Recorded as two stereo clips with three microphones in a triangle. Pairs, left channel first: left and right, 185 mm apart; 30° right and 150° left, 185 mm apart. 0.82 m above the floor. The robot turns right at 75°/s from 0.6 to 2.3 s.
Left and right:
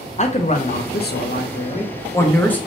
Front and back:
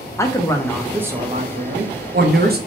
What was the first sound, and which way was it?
A man speaking, 40° left.